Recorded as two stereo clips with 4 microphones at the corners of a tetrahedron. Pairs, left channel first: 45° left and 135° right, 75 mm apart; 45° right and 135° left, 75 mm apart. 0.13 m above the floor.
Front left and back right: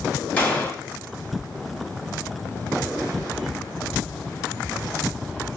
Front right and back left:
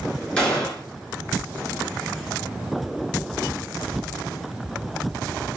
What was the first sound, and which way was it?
A gunshot, 10° left.